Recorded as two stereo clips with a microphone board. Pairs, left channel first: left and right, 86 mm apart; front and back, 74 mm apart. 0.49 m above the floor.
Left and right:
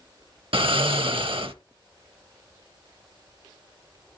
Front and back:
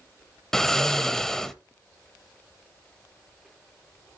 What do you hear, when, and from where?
0.5 s snoring: 85° right, 0.6 m